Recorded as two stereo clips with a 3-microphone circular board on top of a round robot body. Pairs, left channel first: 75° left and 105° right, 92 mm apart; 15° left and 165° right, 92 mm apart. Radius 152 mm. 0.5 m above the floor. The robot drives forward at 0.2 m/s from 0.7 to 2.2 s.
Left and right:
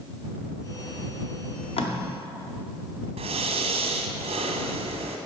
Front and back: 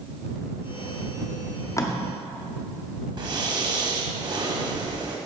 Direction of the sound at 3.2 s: 115° right.